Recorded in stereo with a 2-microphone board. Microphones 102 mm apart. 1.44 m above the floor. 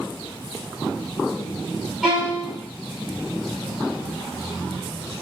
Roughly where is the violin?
Centre.